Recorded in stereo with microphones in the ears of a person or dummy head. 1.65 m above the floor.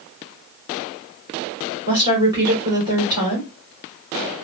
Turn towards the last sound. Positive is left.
turn(degrees=-25)  # may be behind; listen again after turning